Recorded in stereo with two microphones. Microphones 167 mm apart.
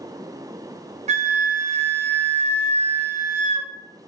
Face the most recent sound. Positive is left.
turn(degrees=-40)  # may be behind; listen again after turning